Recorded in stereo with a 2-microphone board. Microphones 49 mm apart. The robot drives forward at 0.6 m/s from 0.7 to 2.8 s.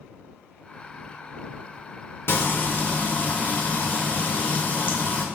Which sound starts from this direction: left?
Frying, at 2.3 s.